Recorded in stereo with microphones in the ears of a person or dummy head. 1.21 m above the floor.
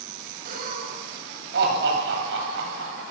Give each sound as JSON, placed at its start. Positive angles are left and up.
{"t": 0.5, "sound": "laughter", "side_deg": -50, "distance_m": 8.5}